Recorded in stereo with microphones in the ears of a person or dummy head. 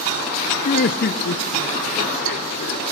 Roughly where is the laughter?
Left.